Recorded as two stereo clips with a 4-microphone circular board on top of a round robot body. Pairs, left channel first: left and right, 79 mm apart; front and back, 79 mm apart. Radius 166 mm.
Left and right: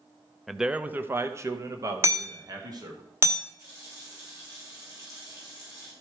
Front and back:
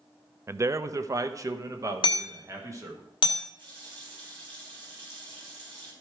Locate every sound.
0.5 s a man speaking: 175° left, 0.6 m; by 3.0 s 130° right, 1.7 m
2.0 s hammering: 30° right, 1.0 m
3.6 s a running tap: 145° right, 3 m